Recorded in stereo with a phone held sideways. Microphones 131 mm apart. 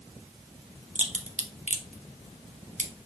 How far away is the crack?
About 0.7 m.